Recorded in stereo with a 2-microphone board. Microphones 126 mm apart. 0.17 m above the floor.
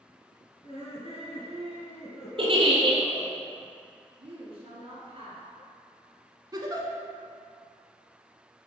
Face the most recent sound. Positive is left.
turn(degrees=-35)  # may be behind; listen again after turning